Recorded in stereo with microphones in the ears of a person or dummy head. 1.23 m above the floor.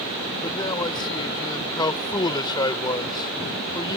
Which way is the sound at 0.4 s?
25° left (ahead or behind).